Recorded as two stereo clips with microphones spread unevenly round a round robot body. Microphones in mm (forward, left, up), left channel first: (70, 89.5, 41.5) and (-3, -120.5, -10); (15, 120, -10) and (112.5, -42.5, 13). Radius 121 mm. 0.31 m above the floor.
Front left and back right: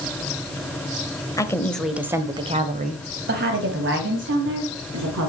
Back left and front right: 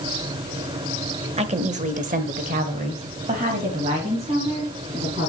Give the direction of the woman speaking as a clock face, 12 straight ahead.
12 o'clock.